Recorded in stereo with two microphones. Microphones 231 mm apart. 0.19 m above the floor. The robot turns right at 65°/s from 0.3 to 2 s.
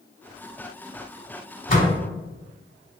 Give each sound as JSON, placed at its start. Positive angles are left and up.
{"t": 1.7, "sound": "a door slam", "side_deg": 35, "distance_m": 1.1}